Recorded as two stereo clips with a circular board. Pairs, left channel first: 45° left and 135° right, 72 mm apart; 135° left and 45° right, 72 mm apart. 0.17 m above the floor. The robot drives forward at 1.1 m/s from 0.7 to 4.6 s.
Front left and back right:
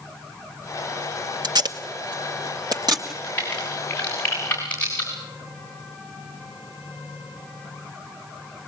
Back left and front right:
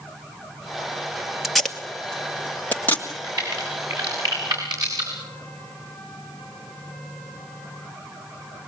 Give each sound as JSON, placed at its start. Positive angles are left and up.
{"t": 1.4, "sound": "tape being pulled", "azimuth_deg": -130, "distance_m": 1.3}
{"t": 3.1, "sound": "a crack", "azimuth_deg": -20, "distance_m": 9.0}